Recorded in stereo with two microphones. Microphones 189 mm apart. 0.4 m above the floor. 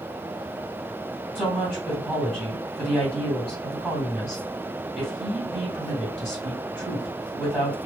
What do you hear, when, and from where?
1.4 s a woman speaking: centre (ahead or behind), 2 m